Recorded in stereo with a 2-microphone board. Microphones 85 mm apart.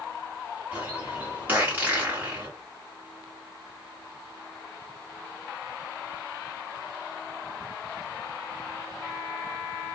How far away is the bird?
About 1.9 m.